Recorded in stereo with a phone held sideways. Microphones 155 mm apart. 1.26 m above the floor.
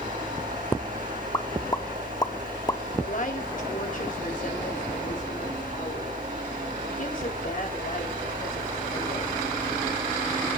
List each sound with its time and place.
0.0 s a fan: 60° right (ahead or behind), 8 m
1.3 s a pop: 25° left (ahead or behind), 1.0 m
3.0 s a woman speaking: 60° left (ahead or behind), 3.5 m